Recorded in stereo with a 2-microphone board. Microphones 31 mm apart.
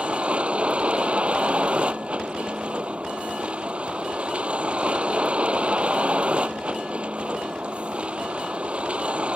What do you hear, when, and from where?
0.0 s a vehicle: 40° right (ahead or behind)